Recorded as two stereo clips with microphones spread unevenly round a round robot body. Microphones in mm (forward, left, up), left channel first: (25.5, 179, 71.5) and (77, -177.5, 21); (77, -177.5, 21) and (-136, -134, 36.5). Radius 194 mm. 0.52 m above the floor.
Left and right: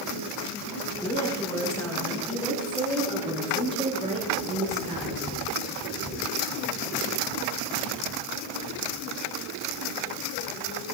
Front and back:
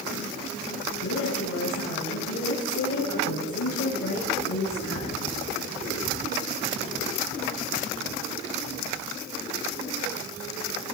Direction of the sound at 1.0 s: 20° left.